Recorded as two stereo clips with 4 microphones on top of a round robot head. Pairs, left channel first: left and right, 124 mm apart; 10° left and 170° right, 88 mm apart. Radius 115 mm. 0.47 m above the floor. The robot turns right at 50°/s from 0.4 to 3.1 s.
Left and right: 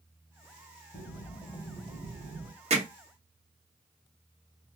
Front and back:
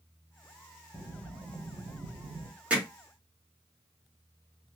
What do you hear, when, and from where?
0.9 s breathing: 145° left, 2.5 m; by 2.5 s 135° right, 2.5 m
2.7 s hammering: 100° right, 1.6 m; by 2.9 s 90° right, 1.6 m